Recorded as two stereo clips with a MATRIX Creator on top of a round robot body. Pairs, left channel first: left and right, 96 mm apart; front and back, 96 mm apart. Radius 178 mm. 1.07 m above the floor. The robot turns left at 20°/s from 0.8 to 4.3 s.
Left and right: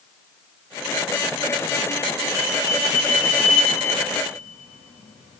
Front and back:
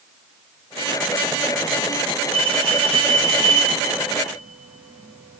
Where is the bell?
160° left, 0.5 m; by 5.4 s 120° left, 0.5 m.